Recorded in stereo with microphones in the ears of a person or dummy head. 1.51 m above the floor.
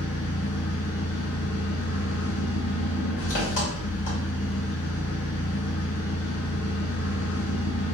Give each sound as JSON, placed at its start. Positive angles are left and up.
{"t": 0.0, "sound": "an engine running", "side_deg": 55, "distance_m": 1.5}